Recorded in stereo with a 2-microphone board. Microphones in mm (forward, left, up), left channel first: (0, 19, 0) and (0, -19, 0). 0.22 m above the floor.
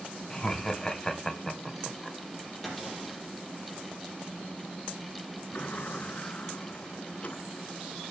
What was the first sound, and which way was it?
Laughter, 20° left (ahead or behind).